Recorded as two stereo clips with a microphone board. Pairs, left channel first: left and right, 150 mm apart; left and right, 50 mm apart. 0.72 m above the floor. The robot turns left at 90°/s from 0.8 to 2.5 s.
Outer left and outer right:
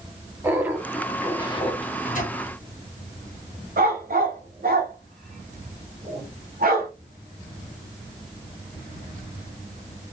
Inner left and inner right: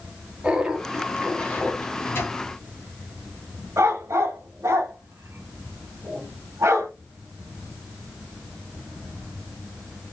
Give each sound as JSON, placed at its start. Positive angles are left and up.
{"t": 0.4, "sound": "laughter", "azimuth_deg": -160, "distance_m": 0.8}
{"t": 1.8, "sound": "a microwave", "side_deg": 40, "distance_m": 1.3}
{"t": 3.8, "sound": "a dog barking", "side_deg": -70, "distance_m": 1.0}